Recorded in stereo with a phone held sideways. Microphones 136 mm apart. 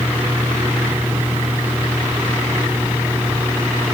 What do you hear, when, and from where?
0.0 s a fan: 15° right (ahead or behind), 2.5 m